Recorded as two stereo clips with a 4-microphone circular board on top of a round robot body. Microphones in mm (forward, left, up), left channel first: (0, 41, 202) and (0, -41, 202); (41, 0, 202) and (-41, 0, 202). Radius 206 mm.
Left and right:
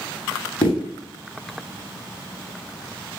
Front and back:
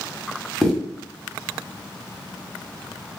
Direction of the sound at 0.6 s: 90° left.